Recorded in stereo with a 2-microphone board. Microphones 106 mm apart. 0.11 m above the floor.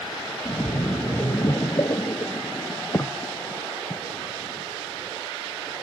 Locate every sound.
0.5 s a splash: 30° left (ahead or behind), 0.8 m